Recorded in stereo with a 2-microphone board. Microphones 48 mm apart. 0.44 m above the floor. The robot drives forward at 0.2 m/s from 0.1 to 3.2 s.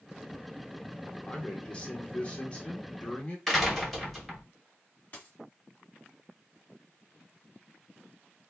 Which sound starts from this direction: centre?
A door slam, at 3.5 s.